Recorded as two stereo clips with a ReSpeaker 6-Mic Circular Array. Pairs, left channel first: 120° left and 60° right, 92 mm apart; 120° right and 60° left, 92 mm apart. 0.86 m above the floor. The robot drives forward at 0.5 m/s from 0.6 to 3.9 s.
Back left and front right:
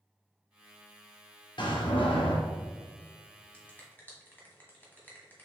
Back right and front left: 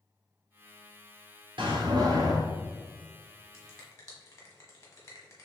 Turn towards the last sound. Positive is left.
turn(degrees=-175)